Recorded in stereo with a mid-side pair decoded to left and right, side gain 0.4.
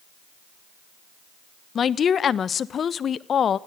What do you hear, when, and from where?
1.8 s a woman speaking: 55° left, 1.2 m